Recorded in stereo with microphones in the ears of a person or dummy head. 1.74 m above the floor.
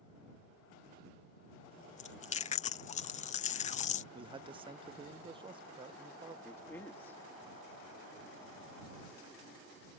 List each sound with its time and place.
2.0 s chewing: 35° left (ahead or behind)
4.1 s a man speaking: 25° right (ahead or behind)
6.5 s a man speaking: 15° left (ahead or behind)